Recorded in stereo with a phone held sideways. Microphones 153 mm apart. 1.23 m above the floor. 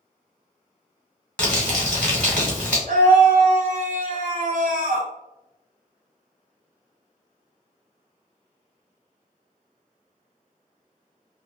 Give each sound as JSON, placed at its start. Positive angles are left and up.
{"t": 1.4, "sound": "crumpling", "side_deg": 10, "distance_m": 1.5}
{"t": 2.9, "sound": "a scream", "side_deg": -75, "distance_m": 0.6}